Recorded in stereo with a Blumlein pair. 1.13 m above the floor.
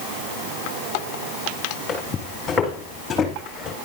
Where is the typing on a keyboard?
No typing on a keyboard in this recording.